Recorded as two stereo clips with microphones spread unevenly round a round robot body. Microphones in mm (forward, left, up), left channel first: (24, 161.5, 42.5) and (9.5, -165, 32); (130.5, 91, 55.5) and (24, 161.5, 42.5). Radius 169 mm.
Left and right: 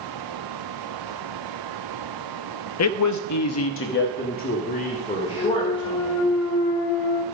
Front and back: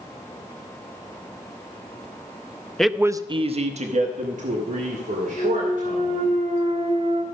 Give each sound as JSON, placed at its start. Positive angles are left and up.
{"t": 2.8, "sound": "a man speaking", "azimuth_deg": 55, "distance_m": 0.7}
{"t": 5.3, "sound": "a clunk", "azimuth_deg": 120, "distance_m": 1.5}